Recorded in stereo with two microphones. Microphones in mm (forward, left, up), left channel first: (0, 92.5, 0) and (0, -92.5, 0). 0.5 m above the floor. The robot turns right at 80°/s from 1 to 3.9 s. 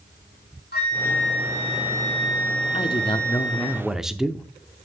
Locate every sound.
0.7 s a flute: 120° left, 3.5 m; by 3.7 s 20° right, 3.5 m
2.7 s a man speaking: 30° left (ahead or behind), 0.7 m; by 4.5 s 5° right (ahead or behind), 0.7 m